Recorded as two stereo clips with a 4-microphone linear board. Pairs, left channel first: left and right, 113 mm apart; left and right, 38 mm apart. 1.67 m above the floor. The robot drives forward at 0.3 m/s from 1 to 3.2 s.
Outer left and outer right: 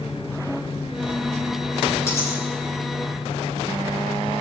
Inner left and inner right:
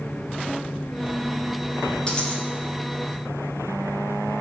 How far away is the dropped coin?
About 5.5 m.